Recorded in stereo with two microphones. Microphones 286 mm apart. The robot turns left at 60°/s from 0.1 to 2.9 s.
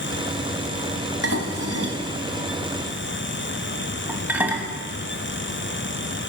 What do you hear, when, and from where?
1.2 s dishes clattering: 55° right (ahead or behind), 1.5 m; by 4.7 s 5° right (ahead or behind), 1.5 m